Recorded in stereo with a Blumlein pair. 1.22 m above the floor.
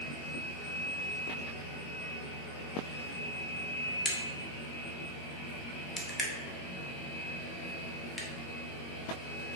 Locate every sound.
4.0 s a crack: 20° left, 0.8 m